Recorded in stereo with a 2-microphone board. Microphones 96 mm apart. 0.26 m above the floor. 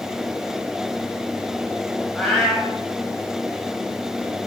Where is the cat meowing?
Centre (ahead or behind), 4.5 m.